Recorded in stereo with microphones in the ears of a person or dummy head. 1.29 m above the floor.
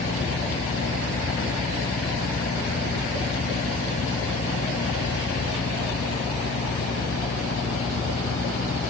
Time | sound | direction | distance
0.0 | a fan | 50° left (ahead or behind) | ?